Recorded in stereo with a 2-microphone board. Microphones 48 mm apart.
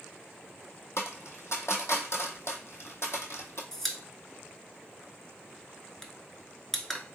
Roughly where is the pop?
Centre.